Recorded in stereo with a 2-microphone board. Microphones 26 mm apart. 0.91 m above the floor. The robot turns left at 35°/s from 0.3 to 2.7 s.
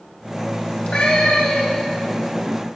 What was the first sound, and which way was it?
A cat meowing, 130° left.